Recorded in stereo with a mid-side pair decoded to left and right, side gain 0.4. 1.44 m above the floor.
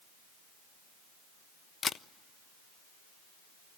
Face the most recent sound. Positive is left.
turn(degrees=55)